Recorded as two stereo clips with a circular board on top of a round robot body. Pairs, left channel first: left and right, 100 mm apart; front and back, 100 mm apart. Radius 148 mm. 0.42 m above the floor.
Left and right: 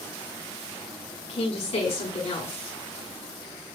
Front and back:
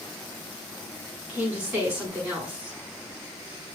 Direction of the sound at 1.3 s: 105° left.